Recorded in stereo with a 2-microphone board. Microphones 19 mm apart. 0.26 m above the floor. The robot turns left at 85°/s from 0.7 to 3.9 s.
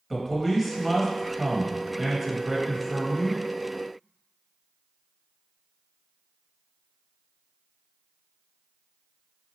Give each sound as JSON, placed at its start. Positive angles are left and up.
{"t": 0.1, "sound": "a man speaking", "side_deg": -5, "distance_m": 0.9}